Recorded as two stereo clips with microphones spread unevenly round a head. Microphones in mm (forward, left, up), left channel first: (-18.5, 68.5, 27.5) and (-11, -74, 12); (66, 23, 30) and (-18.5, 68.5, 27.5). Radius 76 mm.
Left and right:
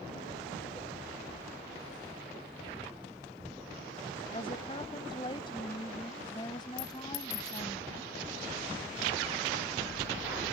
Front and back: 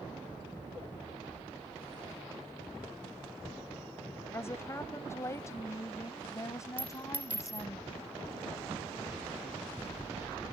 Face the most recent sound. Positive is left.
turn(degrees=80)